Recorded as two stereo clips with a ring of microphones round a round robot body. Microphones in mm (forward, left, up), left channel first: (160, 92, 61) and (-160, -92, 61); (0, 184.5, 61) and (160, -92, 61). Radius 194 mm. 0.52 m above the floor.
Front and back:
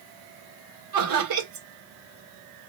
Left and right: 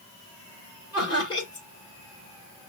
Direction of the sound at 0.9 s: 165° right.